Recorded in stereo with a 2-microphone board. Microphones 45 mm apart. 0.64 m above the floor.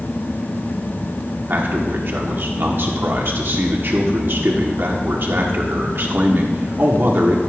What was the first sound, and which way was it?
A man speaking, 55° right (ahead or behind).